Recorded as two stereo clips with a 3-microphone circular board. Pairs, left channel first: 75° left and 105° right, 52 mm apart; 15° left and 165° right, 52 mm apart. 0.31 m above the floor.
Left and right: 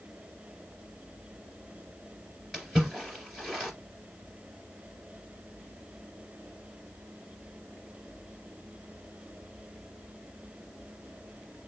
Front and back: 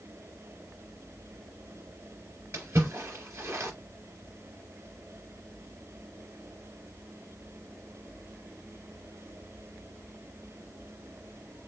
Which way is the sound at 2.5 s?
160° left.